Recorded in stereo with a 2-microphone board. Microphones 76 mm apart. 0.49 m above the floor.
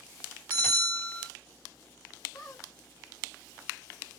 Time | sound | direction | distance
0.5 | a bell | 20° left (ahead or behind) | 2 m
2.3 | a squeak | 55° left (ahead or behind) | 1.4 m